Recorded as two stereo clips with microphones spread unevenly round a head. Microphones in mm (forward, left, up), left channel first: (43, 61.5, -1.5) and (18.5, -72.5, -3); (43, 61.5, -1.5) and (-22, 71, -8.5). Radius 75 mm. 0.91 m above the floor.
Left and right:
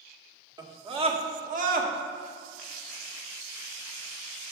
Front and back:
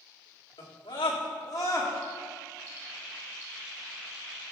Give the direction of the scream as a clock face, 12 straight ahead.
1 o'clock.